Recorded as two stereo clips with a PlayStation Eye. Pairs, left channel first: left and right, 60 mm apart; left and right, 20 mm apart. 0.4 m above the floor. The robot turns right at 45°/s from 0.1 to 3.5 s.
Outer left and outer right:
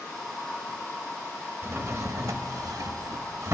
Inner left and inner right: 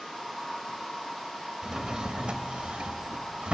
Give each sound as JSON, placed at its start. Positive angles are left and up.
{"t": 1.6, "sound": "a drawer", "azimuth_deg": -140, "distance_m": 0.6}